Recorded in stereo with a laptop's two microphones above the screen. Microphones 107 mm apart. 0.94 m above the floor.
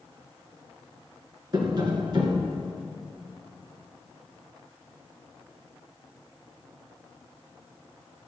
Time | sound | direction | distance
1.5 | tapping | 40° right (ahead or behind) | 1.8 m